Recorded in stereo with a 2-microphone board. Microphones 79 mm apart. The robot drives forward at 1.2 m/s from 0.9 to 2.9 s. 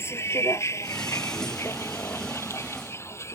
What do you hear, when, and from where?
0.0 s a vehicle: 30° left (ahead or behind); by 3.4 s 35° left (ahead or behind)